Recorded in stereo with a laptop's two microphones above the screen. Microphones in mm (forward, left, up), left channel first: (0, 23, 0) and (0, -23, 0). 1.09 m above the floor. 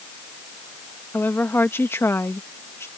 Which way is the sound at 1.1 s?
50° left (ahead or behind).